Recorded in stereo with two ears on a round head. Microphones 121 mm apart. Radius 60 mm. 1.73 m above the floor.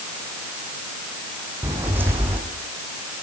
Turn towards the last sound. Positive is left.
turn(degrees=-15)  # may be behind; listen again after turning